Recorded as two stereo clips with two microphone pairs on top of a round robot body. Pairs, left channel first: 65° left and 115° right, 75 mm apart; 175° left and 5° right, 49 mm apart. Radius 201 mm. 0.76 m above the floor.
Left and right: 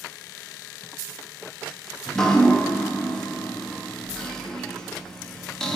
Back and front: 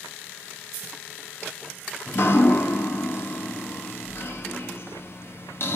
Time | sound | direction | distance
2.1 | dripping | 145° left | 3 m